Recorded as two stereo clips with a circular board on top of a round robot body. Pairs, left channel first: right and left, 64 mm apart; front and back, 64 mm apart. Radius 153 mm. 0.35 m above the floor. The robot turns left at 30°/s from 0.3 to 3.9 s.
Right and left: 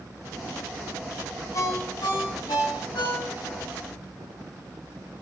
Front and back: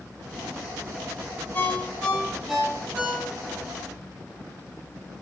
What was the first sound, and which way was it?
A ringtone, 60° right.